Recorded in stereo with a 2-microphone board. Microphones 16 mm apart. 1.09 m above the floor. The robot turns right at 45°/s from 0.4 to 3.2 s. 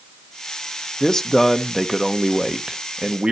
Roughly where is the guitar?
No guitar in this recording.